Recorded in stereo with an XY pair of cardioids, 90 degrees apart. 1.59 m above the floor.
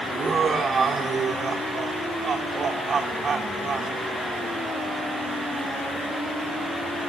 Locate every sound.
0.1 s laughter: 50° right, 3.5 m